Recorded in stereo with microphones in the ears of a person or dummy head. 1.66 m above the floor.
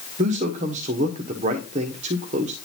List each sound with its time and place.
0.2 s a man speaking: 40° right (ahead or behind), 1.0 m